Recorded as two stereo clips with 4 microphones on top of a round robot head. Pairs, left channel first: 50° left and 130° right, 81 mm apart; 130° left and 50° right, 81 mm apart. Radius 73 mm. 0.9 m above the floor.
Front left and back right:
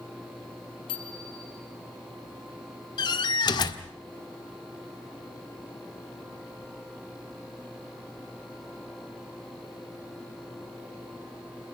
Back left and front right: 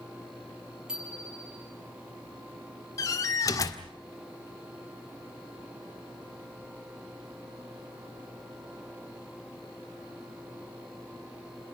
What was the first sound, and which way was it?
A bicycle bell, 30° left.